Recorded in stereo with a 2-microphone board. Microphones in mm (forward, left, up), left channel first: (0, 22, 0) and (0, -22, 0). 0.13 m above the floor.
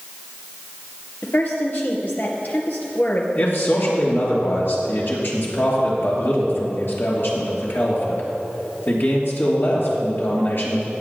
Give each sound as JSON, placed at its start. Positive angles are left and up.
{"t": 1.2, "sound": "a woman speaking", "side_deg": 45, "distance_m": 2.0}
{"t": 3.4, "sound": "a man speaking", "side_deg": 55, "distance_m": 3.0}